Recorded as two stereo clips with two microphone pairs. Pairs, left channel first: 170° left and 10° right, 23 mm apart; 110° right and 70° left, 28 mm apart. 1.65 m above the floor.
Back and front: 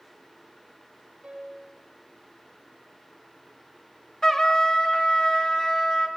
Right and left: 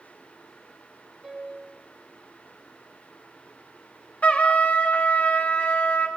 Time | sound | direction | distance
1.2 | a piano | straight ahead | 2.5 m
4.2 | a trumpet | 130° right | 1.0 m